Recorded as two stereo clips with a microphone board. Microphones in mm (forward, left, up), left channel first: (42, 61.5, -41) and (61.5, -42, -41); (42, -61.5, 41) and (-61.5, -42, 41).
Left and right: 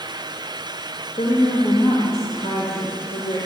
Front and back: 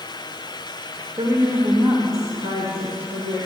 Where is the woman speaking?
135° left, 1.6 m.